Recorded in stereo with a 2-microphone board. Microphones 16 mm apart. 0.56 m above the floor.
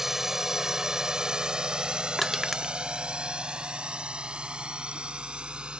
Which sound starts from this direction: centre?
Crushing, at 2.2 s.